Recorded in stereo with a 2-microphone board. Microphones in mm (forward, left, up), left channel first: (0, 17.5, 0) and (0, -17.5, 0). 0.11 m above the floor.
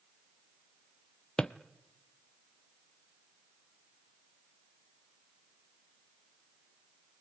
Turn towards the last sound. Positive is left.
turn(degrees=25)  # may be behind; listen again after turning